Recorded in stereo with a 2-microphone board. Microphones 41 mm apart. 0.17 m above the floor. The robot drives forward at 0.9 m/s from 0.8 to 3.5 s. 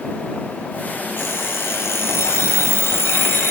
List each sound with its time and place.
1.2 s an alarm clock: 60° left (ahead or behind), 2.5 m